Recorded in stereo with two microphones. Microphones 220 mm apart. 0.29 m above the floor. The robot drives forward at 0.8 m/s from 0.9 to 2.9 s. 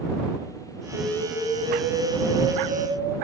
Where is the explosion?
10° right (ahead or behind), 2.5 m; by 3.1 s 5° right (ahead or behind), 3.5 m.